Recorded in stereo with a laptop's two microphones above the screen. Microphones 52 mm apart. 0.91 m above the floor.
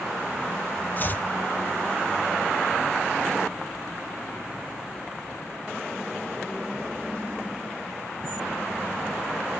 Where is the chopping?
35° left (ahead or behind), 0.6 m.